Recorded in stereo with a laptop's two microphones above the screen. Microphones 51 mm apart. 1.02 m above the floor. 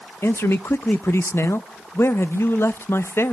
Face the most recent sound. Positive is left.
turn(degrees=55)  # may be behind; listen again after turning